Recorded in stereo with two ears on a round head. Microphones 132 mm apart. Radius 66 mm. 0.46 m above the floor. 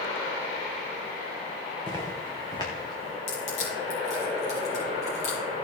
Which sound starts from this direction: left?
Crushing, at 3.3 s.